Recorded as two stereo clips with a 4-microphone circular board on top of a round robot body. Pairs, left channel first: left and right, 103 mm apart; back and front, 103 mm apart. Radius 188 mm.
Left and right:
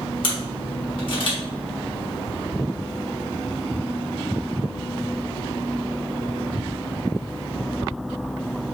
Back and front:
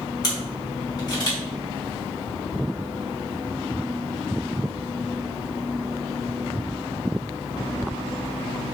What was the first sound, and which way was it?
A camera shutter, 130° left.